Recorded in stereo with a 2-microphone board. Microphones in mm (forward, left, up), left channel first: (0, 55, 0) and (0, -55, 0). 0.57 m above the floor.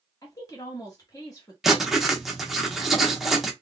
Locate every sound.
0.2 s a woman speaking: 35° left (ahead or behind), 1.1 m
1.6 s writing: centre (ahead or behind), 0.8 m